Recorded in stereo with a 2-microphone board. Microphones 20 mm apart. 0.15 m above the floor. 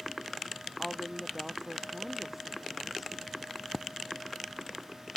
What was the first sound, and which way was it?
A woman speaking, 25° right (ahead or behind).